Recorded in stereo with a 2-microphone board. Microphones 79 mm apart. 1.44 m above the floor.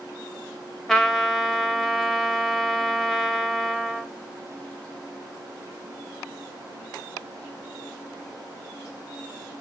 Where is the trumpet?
5° left (ahead or behind), 0.7 m.